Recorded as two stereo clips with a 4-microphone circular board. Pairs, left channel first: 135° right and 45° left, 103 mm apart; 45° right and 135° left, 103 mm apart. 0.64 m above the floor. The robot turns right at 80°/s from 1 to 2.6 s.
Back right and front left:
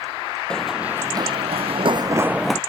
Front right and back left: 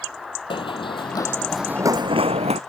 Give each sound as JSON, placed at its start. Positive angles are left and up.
{"t": 0.5, "sound": "running footsteps", "azimuth_deg": -55}